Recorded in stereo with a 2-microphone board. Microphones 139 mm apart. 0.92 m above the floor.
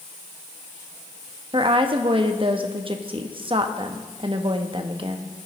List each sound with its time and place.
1.5 s a woman speaking: 40° right (ahead or behind), 0.8 m